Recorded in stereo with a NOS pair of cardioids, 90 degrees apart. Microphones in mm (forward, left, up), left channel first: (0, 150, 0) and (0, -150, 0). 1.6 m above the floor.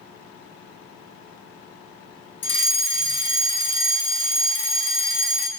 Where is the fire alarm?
40° left, 2.5 m.